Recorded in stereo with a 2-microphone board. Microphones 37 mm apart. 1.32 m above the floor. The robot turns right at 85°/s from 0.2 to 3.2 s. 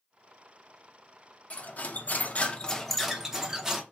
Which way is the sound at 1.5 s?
50° left.